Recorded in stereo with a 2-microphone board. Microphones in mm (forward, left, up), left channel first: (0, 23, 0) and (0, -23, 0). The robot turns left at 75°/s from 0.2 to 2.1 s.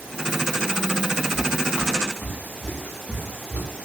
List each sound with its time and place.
1.4 s footsteps: 10° right (ahead or behind), 1.8 m; by 3.7 s 30° left (ahead or behind), 5.5 m